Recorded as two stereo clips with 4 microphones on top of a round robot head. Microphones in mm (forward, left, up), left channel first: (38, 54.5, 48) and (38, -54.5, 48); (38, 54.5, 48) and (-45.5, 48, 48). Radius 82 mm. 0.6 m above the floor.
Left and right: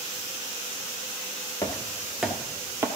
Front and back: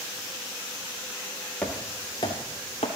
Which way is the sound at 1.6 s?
65° left.